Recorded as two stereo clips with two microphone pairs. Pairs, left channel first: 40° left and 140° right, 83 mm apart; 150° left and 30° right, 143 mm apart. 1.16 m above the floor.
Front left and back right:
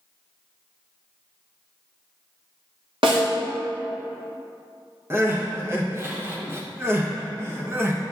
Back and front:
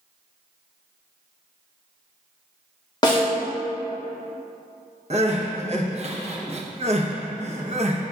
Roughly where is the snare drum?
Behind right.